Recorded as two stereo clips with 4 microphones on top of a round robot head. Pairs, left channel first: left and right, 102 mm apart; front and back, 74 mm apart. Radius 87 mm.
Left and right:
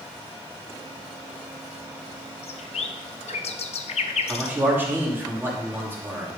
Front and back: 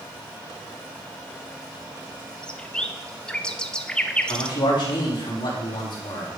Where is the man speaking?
20° right, 2.5 m.